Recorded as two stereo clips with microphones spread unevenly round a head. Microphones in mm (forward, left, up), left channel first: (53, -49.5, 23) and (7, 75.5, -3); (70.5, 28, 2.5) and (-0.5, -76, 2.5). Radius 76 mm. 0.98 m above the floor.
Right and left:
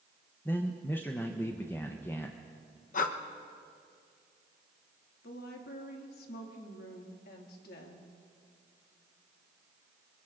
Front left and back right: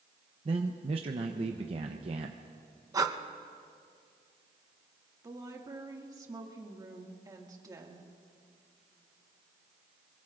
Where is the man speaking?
155° right, 0.7 m.